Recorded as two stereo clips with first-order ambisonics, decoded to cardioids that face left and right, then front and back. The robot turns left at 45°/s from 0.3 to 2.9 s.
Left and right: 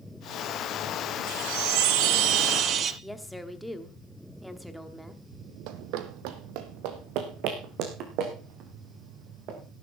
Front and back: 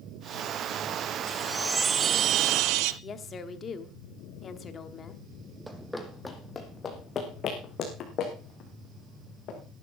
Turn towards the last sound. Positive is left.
turn(degrees=-50)